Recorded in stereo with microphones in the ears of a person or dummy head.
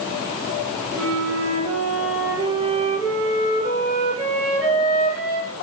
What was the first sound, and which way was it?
A flute, 65° right (ahead or behind).